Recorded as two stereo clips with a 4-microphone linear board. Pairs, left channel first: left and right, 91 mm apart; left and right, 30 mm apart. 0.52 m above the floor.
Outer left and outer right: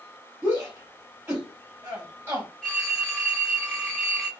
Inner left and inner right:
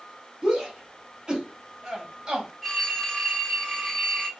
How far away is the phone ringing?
About 1.1 m.